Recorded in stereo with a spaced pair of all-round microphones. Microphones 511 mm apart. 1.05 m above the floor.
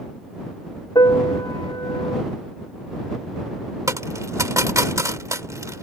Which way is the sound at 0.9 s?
10° left (ahead or behind).